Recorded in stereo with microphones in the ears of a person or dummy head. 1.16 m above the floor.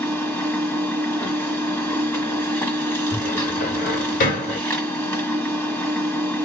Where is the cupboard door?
40° left (ahead or behind), 1.7 m.